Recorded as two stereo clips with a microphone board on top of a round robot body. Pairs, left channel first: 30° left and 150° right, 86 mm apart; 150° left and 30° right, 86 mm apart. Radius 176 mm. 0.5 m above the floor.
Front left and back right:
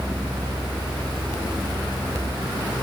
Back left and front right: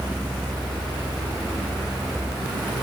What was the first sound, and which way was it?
Only background noise.